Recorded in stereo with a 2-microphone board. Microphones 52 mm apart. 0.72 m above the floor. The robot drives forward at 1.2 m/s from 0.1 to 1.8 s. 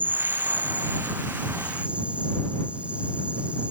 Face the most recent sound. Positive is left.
turn(degrees=-25)  # may be behind; listen again after turning